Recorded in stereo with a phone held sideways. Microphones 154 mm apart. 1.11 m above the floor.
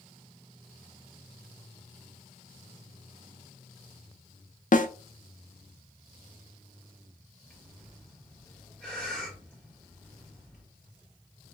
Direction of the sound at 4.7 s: 60° left (ahead or behind).